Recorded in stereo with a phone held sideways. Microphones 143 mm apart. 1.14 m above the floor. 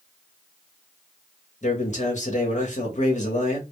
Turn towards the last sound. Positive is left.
turn(degrees=55)  # may be behind; listen again after turning